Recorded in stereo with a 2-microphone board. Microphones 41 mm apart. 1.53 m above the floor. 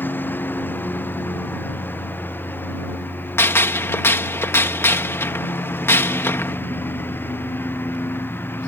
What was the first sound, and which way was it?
A lawn mower, 50° left (ahead or behind).